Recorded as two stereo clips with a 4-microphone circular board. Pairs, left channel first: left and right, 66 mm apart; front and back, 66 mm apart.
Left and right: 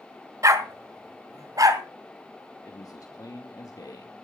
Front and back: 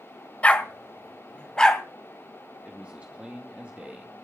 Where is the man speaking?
110° left, 2.5 m.